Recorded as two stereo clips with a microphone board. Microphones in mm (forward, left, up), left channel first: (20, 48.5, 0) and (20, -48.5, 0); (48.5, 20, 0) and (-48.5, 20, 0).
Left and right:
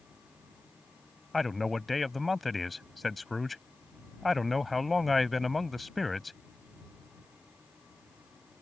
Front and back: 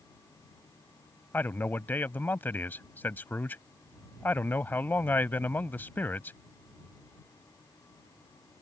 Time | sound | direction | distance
1.3 | a man speaking | straight ahead | ?